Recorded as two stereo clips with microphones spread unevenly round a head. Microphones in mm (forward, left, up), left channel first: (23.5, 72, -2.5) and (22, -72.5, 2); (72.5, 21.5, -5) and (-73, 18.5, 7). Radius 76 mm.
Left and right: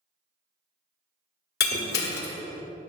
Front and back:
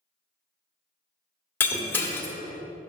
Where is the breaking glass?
80° left, 1.6 m.